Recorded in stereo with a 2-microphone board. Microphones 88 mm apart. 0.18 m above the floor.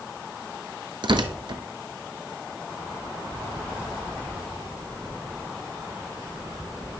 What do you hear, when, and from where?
1.0 s tearing paper: 65° right (ahead or behind), 1.0 m